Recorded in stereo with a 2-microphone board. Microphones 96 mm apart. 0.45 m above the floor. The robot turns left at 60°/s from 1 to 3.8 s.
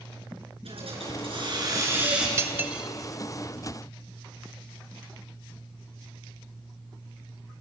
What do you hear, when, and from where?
0.7 s a hiss: 95° right, 5.5 m; by 2.3 s 175° right, 5.5 m
2.4 s cutlery clinking: 30° right (ahead or behind), 1.0 m; by 2.9 s 5° right (ahead or behind), 1.0 m